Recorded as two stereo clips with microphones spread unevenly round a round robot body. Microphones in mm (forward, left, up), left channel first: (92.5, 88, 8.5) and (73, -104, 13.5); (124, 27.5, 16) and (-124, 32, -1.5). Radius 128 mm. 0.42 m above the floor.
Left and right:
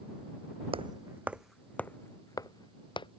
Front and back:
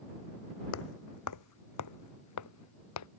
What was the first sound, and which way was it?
Footsteps, 35° right.